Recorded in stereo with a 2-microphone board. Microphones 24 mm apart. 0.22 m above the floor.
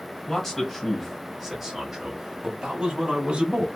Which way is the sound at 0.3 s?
10° left (ahead or behind).